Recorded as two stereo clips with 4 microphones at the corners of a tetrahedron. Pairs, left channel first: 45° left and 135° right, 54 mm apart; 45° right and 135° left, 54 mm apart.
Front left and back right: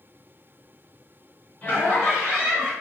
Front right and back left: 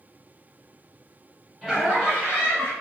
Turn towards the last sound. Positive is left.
turn(degrees=-65)